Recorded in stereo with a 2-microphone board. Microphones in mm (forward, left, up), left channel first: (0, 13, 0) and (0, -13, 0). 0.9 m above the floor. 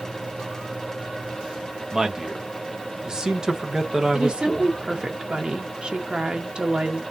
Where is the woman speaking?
35° right (ahead or behind), 0.8 m.